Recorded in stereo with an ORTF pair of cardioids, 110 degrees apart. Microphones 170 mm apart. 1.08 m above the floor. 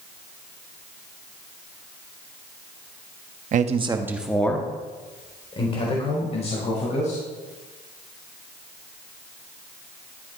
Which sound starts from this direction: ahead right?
A man speaking, at 3.5 s.